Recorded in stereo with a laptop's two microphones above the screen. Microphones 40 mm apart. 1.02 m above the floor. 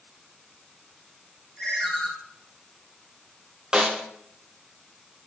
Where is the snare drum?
15° right (ahead or behind), 0.5 m.